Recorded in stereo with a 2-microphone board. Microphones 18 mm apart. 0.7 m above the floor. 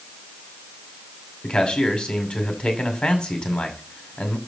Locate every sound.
1.4 s a man speaking: 50° left (ahead or behind), 2 m